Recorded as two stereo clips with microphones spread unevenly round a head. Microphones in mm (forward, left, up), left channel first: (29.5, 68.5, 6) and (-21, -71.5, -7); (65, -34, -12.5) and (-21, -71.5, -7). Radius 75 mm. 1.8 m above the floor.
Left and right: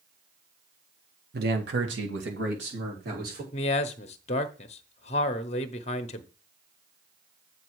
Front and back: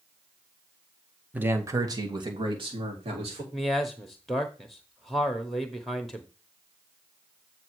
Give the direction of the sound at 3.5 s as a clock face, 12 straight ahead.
8 o'clock.